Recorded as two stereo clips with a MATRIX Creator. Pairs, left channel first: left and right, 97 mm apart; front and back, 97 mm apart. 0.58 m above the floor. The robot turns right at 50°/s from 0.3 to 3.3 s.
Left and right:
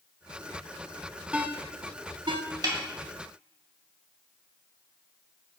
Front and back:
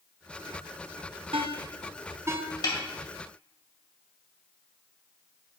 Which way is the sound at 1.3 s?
165° right.